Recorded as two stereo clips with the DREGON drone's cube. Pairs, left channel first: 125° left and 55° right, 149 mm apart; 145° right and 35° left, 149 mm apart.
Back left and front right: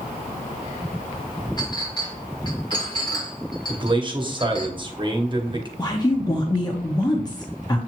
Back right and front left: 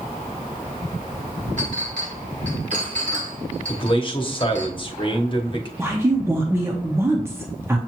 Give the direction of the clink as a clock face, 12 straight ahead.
10 o'clock.